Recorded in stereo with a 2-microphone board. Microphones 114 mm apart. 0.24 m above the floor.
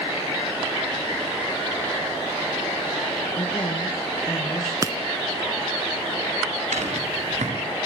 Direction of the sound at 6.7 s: 85° right.